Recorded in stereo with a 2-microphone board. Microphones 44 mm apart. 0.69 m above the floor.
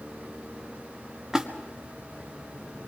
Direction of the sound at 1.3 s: 10° right (ahead or behind).